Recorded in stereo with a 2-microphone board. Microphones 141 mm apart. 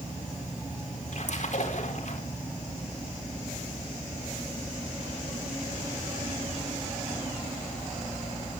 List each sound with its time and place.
1.1 s a splash: 60° left (ahead or behind), 4 m